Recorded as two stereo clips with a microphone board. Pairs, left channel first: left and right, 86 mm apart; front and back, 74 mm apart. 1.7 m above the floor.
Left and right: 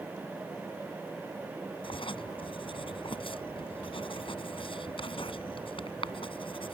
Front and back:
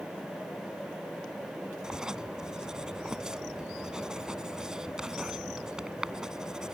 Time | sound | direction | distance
1.8 | writing | 100° left | ?